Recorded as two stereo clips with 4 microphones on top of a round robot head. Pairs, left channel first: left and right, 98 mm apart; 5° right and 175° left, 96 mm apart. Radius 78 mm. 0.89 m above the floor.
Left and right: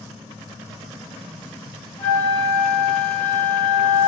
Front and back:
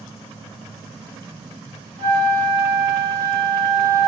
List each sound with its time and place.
2.0 s a flute: 155° left, 2 m